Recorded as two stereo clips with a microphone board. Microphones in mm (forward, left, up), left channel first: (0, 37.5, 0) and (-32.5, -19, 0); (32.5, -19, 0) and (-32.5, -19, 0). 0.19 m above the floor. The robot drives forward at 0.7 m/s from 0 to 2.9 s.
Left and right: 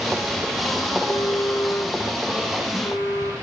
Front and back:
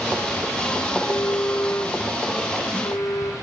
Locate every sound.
0.9 s a phone buzzing: 20° left, 6 m; by 3.3 s 25° left, 4.5 m